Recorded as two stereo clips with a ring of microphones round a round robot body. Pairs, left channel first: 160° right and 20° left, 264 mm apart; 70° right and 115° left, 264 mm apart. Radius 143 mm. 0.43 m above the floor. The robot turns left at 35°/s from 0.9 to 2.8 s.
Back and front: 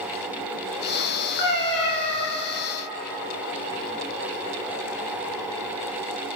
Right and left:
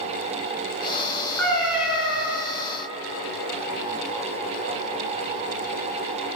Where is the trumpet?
No trumpet in this recording.